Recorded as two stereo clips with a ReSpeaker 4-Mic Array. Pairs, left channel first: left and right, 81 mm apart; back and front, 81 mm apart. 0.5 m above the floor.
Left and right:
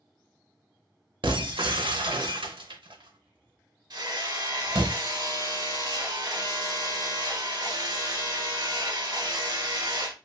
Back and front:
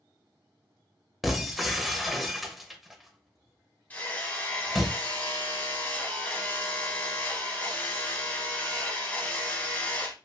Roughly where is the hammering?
Behind right.